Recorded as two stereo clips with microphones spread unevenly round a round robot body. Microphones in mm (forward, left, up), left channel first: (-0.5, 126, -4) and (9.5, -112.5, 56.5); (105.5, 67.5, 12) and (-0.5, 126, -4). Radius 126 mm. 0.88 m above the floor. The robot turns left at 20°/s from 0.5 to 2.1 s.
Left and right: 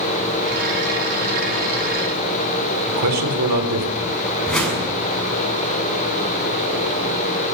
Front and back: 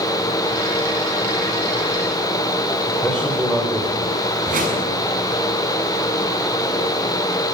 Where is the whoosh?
Straight behind, 7 m.